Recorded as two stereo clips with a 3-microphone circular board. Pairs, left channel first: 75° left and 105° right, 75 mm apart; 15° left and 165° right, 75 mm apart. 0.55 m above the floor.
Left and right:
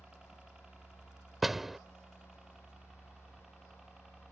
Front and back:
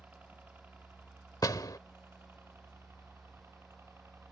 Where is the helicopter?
165° right; by 4.3 s 175° left.